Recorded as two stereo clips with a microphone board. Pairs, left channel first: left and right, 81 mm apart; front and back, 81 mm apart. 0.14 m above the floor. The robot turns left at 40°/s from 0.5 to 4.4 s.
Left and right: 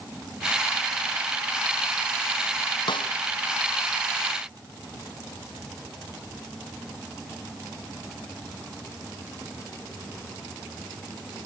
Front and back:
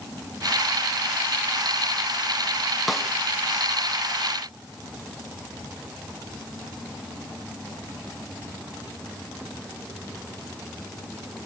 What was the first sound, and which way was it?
A snare drum, 90° left.